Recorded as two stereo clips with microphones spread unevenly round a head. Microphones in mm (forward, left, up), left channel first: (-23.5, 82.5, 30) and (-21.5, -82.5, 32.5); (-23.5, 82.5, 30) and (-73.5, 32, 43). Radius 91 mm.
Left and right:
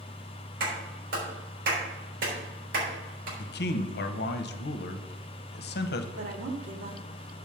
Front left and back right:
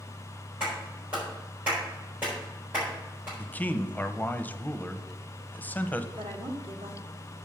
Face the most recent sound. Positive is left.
turn(degrees=-115)